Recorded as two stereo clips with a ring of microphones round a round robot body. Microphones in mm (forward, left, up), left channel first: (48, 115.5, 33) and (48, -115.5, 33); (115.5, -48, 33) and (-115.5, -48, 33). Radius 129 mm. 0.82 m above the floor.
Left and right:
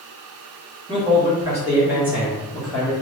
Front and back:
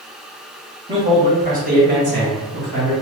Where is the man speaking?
130° right, 1.1 m; by 2.9 s straight behind, 1.6 m.